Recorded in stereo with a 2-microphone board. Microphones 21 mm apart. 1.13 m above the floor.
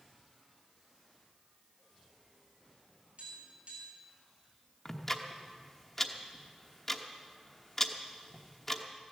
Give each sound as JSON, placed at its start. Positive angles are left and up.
{"t": 3.2, "sound": "tapping", "side_deg": -65, "distance_m": 6.5}
{"t": 4.8, "sound": "ticking", "side_deg": 20, "distance_m": 1.1}